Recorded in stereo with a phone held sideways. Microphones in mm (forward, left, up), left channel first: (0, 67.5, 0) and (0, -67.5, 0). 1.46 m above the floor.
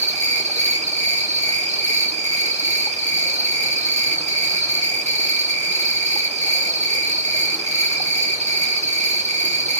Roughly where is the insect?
Right.